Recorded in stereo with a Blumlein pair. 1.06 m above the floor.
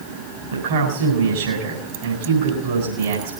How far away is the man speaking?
About 4.5 m.